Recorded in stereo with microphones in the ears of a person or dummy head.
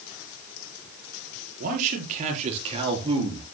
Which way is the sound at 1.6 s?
45° right (ahead or behind).